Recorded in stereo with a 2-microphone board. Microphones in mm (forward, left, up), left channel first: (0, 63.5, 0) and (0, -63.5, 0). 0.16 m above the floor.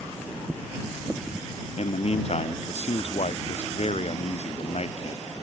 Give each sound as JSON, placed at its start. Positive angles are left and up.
{"t": 1.8, "sound": "a man speaking", "side_deg": 55}